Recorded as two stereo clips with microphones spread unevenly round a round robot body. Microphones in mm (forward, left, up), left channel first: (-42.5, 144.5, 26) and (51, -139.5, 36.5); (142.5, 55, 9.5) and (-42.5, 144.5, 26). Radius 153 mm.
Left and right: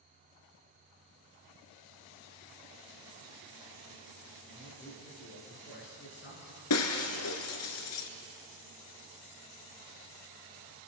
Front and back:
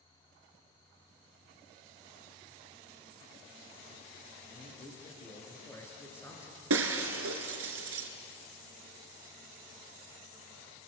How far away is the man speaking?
About 8 m.